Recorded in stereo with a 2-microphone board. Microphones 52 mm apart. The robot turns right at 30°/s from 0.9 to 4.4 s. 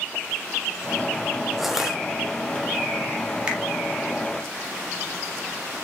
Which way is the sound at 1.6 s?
Centre (ahead or behind).